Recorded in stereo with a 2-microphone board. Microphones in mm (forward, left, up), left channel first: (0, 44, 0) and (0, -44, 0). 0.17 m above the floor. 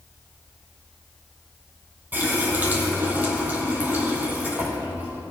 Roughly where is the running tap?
Right.